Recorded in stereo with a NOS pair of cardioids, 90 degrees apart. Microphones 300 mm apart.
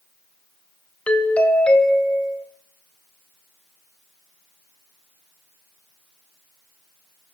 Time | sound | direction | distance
1.1 | a doorbell | 5° left | 1.6 m